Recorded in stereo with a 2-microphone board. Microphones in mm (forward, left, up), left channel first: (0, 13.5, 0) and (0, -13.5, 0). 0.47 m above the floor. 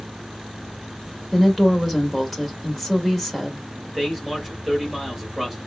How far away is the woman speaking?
About 1.5 m.